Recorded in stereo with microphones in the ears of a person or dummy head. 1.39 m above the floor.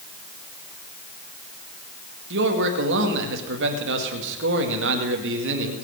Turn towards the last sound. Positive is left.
turn(degrees=-70)  # may be behind; listen again after turning